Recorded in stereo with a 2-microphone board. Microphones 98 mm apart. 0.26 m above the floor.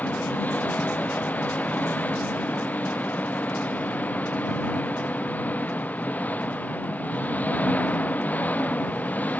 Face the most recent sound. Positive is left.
turn(degrees=15)  # may be behind; listen again after turning